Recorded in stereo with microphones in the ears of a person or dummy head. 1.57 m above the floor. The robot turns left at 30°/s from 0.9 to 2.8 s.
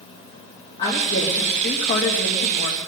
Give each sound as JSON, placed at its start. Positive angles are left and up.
{"t": 0.8, "sound": "a woman speaking", "azimuth_deg": 155, "distance_m": 2.5}